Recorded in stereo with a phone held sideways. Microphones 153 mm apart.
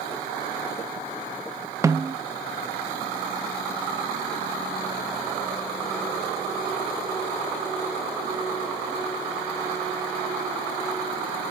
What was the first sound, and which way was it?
A snare drum, 20° right (ahead or behind).